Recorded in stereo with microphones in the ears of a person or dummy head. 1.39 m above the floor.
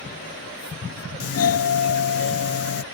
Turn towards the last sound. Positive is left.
turn(degrees=70)  # may be behind; listen again after turning